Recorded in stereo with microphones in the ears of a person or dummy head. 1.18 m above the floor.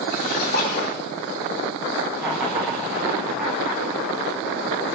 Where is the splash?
55° left (ahead or behind), 3.5 m.